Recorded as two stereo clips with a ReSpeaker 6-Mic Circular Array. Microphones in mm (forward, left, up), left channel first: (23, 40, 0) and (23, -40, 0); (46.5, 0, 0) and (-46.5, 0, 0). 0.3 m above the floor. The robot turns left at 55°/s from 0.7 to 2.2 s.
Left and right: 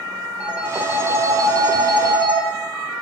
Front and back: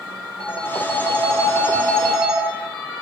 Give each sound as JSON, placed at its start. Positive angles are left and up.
{"t": 0.4, "sound": "a phone ringing", "azimuth_deg": -15, "distance_m": 3.0}